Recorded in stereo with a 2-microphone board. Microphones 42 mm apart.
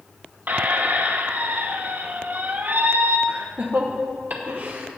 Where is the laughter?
45° right (ahead or behind), 0.8 m.